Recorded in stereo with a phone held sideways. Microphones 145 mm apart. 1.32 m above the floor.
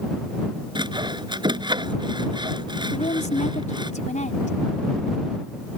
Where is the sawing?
30° right (ahead or behind).